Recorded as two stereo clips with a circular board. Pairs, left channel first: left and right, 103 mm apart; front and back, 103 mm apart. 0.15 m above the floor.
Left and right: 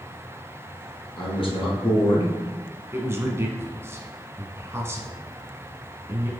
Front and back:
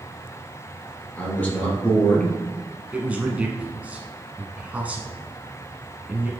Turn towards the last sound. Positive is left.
turn(degrees=-120)